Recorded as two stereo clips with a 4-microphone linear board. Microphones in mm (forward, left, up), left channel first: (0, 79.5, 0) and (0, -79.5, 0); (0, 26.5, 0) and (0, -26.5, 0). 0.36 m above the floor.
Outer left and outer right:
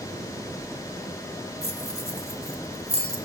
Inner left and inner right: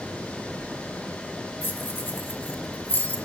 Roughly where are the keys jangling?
Left.